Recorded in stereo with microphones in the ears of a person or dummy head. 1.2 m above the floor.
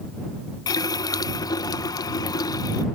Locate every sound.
0.7 s a running tap: 20° left (ahead or behind)